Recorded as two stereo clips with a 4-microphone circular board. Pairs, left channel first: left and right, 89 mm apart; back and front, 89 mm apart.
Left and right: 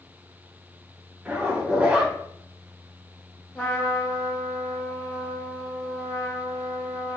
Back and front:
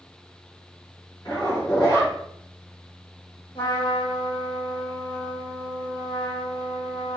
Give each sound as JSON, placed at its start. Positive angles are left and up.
{"t": 1.2, "sound": "a zipper", "azimuth_deg": -160, "distance_m": 1.3}
{"t": 3.5, "sound": "a trumpet", "azimuth_deg": 160, "distance_m": 1.2}